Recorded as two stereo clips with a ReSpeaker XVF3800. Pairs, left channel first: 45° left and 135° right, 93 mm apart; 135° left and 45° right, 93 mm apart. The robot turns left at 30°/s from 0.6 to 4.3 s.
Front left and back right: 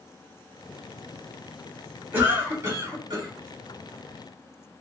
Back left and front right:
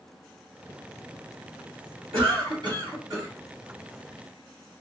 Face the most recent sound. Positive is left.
turn(degrees=-130)